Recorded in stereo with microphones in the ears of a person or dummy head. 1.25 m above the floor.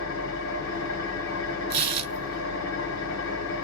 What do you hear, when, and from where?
0.0 s an engine running: 60° left (ahead or behind), 1.0 m
1.7 s tearing paper: 30° right (ahead or behind), 1.4 m